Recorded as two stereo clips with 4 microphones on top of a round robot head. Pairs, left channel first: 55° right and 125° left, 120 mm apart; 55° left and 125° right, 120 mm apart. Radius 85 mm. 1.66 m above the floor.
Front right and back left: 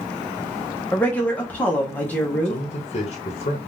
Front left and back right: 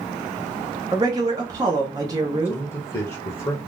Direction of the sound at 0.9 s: 115° right.